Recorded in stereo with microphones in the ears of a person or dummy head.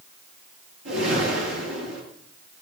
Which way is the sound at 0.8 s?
80° right.